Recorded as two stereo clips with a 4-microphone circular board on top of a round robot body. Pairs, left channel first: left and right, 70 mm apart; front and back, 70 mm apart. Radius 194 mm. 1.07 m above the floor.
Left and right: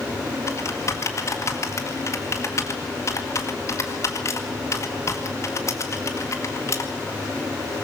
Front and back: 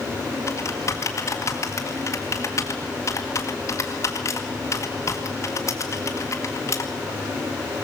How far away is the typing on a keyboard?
About 1.8 m.